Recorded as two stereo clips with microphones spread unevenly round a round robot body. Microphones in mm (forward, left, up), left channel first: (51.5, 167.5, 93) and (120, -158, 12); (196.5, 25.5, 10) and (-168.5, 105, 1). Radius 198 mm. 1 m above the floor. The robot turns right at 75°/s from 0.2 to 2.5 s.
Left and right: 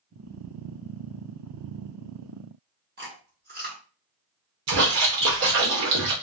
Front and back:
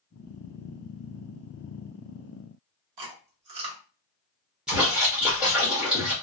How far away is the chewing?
About 1.0 m.